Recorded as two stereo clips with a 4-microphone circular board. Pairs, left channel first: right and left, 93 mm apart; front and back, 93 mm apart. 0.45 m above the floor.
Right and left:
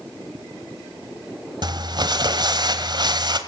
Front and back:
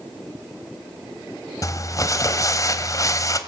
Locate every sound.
1.6 s crumpling: 55° left, 1.5 m